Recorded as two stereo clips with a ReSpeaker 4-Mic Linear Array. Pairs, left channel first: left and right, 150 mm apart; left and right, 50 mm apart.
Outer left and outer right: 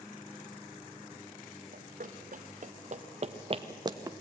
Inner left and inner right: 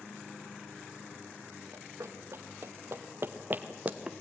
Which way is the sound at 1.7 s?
70° right (ahead or behind).